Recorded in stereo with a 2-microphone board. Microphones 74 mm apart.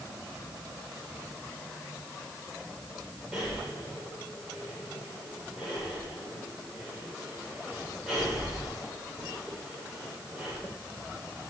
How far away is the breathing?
About 8.5 m.